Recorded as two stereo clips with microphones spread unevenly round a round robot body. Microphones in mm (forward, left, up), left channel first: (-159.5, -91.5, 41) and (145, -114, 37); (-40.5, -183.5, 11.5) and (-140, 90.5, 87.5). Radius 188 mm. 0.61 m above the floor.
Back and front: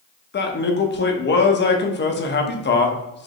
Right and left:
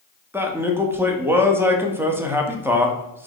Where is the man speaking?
150° right, 0.9 m.